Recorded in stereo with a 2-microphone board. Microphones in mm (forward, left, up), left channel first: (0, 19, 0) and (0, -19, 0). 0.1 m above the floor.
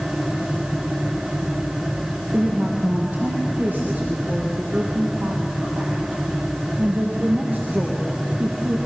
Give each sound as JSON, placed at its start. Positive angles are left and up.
{"t": 2.3, "sound": "a woman speaking", "side_deg": -40, "distance_m": 3.0}